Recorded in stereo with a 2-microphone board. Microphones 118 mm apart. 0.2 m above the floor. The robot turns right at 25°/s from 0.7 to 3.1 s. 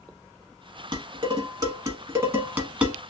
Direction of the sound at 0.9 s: 40° right (ahead or behind).